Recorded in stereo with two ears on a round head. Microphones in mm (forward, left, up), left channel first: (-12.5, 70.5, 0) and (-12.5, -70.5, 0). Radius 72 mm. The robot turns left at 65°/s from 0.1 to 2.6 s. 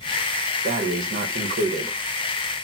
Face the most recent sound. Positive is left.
turn(degrees=-175)